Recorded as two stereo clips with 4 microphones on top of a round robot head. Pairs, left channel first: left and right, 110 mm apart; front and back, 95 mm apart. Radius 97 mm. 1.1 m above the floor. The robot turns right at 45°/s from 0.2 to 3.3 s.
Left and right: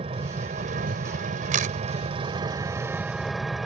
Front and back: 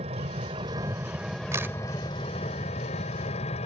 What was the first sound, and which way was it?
An engine running, 140° right.